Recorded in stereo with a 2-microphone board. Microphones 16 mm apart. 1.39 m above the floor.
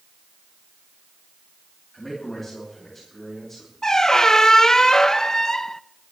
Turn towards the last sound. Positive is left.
turn(degrees=30)  # may be behind; listen again after turning